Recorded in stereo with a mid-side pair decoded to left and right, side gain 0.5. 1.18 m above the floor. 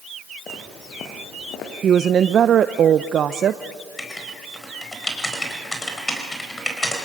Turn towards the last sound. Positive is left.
turn(degrees=20)